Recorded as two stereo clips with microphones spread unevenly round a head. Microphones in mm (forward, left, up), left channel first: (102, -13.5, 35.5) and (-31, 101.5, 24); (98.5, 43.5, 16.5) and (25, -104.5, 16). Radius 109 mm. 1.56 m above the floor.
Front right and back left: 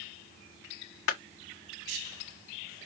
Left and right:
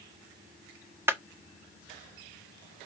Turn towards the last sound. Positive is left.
turn(degrees=-40)